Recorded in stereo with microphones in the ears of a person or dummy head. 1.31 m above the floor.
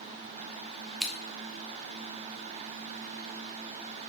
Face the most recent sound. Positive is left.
turn(degrees=0)  # may be behind; listen again after turning